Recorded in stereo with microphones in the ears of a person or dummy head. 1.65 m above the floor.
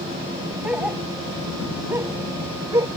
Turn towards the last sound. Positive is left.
turn(degrees=-15)  # may be behind; listen again after turning